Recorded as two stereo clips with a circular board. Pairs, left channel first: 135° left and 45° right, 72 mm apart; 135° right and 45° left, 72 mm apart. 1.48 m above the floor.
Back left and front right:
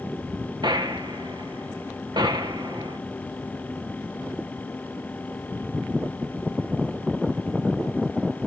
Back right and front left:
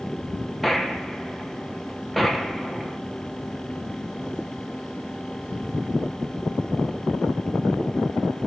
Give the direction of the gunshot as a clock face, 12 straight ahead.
2 o'clock.